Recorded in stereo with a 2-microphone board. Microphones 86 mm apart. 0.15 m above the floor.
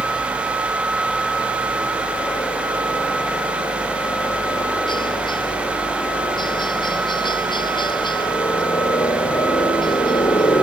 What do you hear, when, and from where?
0.0 s a helicopter: 60° left (ahead or behind)